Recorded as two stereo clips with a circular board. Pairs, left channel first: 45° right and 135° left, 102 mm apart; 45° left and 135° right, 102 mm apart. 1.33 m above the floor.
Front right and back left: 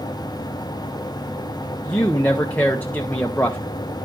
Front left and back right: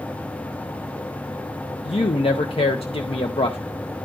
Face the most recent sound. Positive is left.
turn(degrees=30)